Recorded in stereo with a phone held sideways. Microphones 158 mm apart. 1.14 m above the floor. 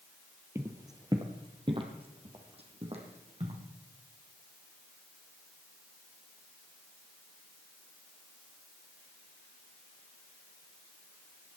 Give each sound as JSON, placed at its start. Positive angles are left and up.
{"t": 0.6, "sound": "footsteps", "side_deg": -15, "distance_m": 1.2}